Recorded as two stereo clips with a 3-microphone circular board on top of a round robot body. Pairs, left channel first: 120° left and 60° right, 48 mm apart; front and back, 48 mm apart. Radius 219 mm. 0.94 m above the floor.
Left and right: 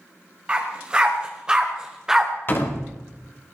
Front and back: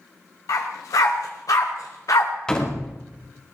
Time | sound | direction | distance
0.5 | a dog barking | 10° left | 2 m
2.5 | a door slam | 75° left | 2.5 m